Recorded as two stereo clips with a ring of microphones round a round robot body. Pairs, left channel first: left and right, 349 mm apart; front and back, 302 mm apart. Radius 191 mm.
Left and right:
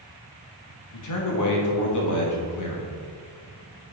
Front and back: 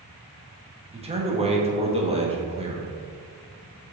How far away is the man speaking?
About 1.6 m.